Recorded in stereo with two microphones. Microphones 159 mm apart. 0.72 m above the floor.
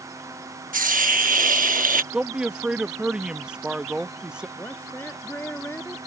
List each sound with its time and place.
0.7 s a hiss: 60° right (ahead or behind)
2.1 s a man speaking: 5° right (ahead or behind)
4.6 s a woman speaking: 15° left (ahead or behind)